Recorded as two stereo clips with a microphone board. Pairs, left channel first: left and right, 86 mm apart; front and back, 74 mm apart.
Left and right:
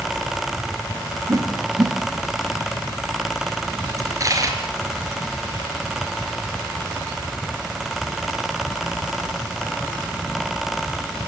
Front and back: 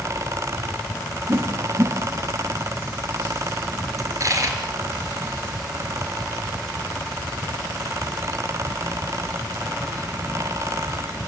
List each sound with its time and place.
1.3 s a whoosh: 130° right, 1.8 m
4.0 s a dropped coin: 140° right, 4 m